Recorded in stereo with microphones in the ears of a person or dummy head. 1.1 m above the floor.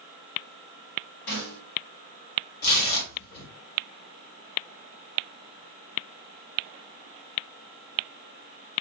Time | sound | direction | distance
1.3 | a snare drum | 75° left (ahead or behind) | 2.5 m
2.6 | tearing paper | 45° left (ahead or behind) | 1.6 m